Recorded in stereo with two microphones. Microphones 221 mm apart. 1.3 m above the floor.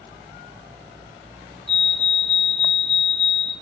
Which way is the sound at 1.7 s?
60° left (ahead or behind).